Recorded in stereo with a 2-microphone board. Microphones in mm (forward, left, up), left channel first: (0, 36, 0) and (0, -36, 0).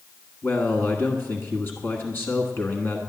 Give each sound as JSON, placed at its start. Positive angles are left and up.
{"t": 0.4, "sound": "a man speaking", "side_deg": 35, "distance_m": 1.4}